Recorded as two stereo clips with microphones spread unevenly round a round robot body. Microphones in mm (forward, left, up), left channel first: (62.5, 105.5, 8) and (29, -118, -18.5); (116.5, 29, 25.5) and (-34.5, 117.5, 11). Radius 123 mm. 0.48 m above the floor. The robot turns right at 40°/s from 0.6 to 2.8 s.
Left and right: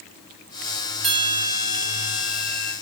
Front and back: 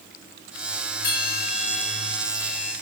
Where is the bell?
90° right, 7.5 m; by 2.7 s 25° right, 7.5 m.